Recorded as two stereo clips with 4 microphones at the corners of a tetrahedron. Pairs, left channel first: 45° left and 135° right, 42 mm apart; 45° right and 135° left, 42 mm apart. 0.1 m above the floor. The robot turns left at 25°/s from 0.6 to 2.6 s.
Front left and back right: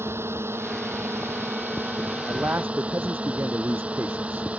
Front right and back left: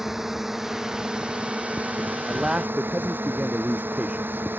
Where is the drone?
145° right; by 4.6 s 165° left.